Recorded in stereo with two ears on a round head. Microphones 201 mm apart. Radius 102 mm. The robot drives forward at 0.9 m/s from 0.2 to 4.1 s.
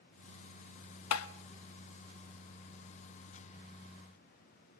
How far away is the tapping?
About 0.9 m.